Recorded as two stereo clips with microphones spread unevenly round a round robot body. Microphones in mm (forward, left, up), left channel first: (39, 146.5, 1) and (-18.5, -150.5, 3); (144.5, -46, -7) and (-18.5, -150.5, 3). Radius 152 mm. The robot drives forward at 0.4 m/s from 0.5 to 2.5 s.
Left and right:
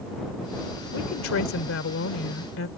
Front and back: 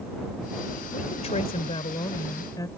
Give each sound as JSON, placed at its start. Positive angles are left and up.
{"t": 0.9, "sound": "a woman speaking", "azimuth_deg": 65}